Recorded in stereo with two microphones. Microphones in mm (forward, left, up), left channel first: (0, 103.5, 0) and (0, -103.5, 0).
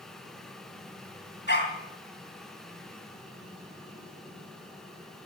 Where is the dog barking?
60° left (ahead or behind), 3 m.